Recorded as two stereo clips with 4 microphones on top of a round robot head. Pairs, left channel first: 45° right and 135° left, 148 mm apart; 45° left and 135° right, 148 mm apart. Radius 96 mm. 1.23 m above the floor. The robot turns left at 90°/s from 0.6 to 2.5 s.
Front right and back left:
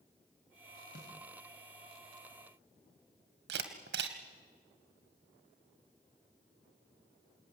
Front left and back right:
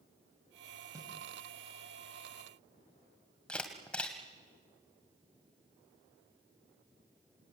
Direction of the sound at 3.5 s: 130° left.